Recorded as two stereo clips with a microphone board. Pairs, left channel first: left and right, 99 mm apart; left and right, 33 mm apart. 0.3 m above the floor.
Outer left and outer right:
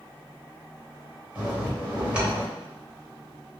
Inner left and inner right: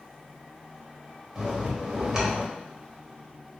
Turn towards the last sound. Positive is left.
turn(degrees=-15)  # may be behind; listen again after turning